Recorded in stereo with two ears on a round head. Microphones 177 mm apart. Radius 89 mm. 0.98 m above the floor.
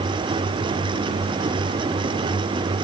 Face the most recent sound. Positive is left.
No sound to turn to.